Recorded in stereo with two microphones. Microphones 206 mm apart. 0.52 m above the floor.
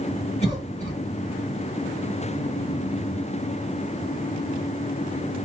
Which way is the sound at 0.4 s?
30° left (ahead or behind).